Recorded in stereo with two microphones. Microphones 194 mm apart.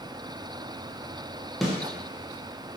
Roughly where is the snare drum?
Centre.